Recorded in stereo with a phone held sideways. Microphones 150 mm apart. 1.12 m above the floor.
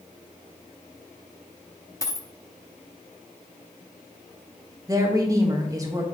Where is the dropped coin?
20° left (ahead or behind), 0.6 m.